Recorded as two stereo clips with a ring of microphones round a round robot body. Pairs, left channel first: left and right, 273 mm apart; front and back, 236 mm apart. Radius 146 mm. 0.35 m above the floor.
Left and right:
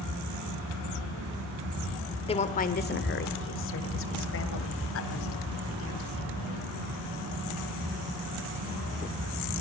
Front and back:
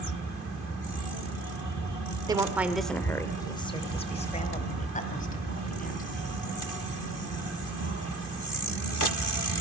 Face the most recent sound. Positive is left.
turn(degrees=50)